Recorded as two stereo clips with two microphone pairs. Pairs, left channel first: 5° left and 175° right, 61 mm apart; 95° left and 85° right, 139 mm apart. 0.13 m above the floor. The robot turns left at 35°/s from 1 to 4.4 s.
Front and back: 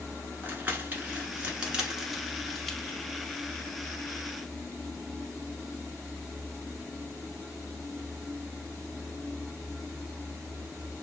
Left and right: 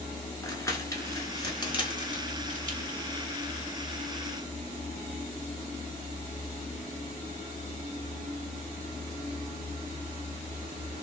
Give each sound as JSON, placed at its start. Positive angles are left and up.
{"t": 0.4, "sound": "crumpling", "azimuth_deg": 140, "distance_m": 0.9}